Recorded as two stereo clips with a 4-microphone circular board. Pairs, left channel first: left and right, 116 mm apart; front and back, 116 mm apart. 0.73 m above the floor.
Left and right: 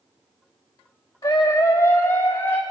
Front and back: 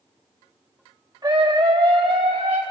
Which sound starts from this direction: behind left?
A scream, at 1.2 s.